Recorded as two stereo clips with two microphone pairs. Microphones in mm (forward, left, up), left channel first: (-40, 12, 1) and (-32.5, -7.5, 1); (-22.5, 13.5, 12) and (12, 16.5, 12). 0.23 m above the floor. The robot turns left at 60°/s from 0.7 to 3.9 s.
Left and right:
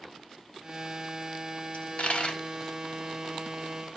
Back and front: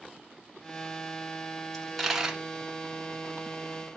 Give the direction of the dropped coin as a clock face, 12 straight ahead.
8 o'clock.